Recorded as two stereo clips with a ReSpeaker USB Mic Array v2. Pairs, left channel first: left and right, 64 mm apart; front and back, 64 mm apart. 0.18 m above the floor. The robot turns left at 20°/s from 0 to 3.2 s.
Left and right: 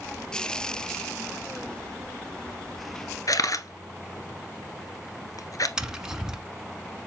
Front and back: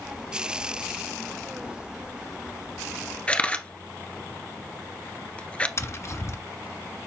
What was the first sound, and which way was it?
A camera shutter, 70° left.